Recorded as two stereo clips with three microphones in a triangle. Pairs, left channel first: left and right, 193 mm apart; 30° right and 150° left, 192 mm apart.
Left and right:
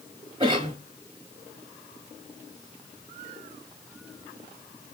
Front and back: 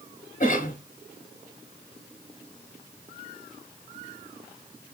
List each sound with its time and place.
0.4 s a cough: 40° right, 1.2 m